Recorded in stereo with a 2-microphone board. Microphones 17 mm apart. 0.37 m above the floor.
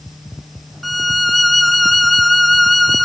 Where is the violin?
10° left (ahead or behind), 0.6 m.